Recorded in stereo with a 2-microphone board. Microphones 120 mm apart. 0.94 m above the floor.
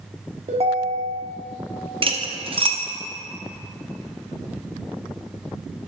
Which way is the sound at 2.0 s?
45° right (ahead or behind).